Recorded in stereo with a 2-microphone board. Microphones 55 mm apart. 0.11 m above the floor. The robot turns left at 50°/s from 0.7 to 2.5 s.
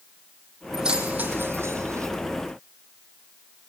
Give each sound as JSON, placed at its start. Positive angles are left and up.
{"t": 0.7, "sound": "keys jangling", "side_deg": -10, "distance_m": 3.0}